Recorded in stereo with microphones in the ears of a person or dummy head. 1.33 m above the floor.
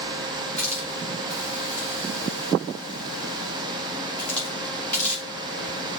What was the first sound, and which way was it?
A hiss, 5° left (ahead or behind).